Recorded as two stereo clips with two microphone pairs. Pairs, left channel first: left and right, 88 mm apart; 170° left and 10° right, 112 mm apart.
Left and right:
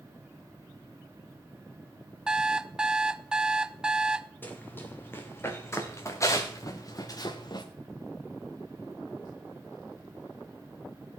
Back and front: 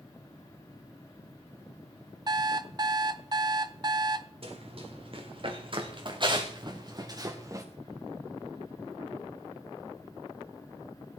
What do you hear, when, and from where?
2.3 s an alarm clock: 10° right, 0.7 m
4.4 s running footsteps: 20° left, 3.5 m; by 7.7 s 55° left, 2 m